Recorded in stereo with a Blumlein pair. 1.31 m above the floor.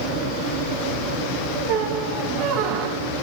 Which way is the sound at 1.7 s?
40° right.